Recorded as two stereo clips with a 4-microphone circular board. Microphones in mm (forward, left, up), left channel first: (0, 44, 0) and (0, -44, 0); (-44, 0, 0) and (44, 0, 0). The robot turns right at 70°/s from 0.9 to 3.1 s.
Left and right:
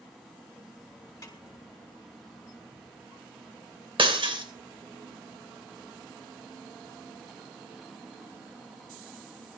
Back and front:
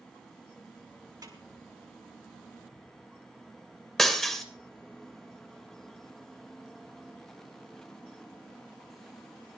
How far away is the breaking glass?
About 3 m.